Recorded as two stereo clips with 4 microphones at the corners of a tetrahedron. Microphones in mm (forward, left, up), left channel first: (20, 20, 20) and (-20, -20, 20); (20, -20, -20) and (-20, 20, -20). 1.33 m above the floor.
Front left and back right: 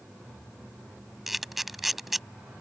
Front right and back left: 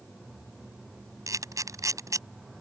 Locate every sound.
1.3 s a camera shutter: 135° left